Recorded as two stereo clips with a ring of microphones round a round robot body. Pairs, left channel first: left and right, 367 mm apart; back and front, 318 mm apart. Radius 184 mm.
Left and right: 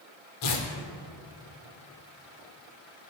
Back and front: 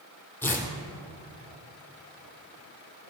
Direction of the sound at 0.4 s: 95° left.